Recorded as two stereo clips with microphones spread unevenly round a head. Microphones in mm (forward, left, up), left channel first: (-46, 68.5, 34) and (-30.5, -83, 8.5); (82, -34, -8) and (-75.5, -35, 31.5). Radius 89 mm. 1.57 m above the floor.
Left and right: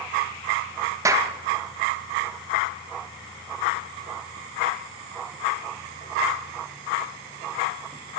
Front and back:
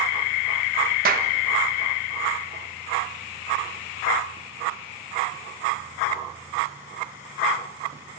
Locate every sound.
1.1 s a clap: 155° right, 1.6 m